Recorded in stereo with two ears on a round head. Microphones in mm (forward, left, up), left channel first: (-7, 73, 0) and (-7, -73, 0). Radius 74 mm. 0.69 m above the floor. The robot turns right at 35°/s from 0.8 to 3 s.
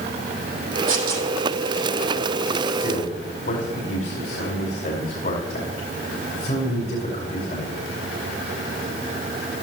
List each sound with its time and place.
0.9 s tearing paper: 55° right (ahead or behind), 6 m; by 1.3 s 70° right (ahead or behind), 6 m
2.7 s a man speaking: 70° left (ahead or behind), 5 m; by 7.9 s 60° left (ahead or behind), 5 m